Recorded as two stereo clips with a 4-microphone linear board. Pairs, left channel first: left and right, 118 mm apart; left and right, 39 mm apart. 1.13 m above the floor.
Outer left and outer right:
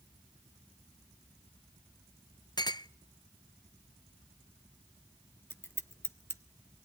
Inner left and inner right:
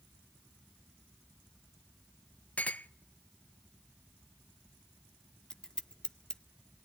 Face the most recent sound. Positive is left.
turn(degrees=20)  # may be behind; listen again after turning